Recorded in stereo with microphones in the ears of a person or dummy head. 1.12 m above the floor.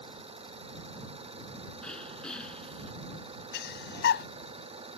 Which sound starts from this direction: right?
An engine running, at 0.0 s.